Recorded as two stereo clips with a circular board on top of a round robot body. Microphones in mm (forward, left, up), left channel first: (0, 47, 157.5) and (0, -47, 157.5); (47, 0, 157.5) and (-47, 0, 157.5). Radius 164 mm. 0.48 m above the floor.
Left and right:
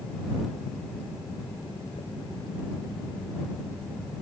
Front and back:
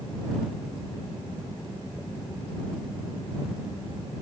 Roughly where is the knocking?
Left.